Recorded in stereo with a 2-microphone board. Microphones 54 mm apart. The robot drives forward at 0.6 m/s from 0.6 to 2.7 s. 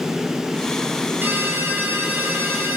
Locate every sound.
1.2 s a ringtone: 40° right (ahead or behind), 7 m; by 2.8 s 35° right (ahead or behind), 7.5 m